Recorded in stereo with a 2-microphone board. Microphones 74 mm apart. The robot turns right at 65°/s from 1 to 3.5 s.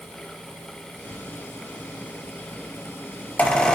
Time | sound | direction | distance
1.1 | a squeak | 15° left (ahead or behind) | 4 m